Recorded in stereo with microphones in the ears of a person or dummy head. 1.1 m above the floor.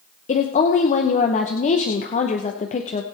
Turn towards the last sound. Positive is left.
turn(degrees=35)  # may be behind; listen again after turning